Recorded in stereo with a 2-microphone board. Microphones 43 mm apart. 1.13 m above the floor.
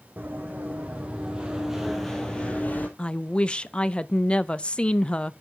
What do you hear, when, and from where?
0.2 s running footsteps: 45° right (ahead or behind), 3.5 m; by 2.9 s 40° left (ahead or behind), 2 m
3.0 s a woman speaking: 25° left (ahead or behind), 0.6 m